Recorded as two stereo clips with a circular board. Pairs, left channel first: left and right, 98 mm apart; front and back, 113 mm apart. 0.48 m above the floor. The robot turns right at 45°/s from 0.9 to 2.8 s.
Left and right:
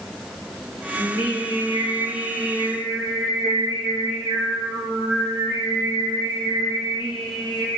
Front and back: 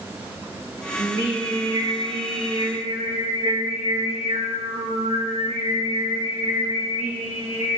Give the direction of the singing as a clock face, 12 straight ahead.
9 o'clock.